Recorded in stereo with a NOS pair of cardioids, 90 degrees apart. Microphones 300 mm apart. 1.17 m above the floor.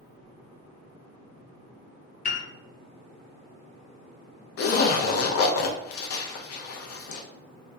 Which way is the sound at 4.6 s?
55° left.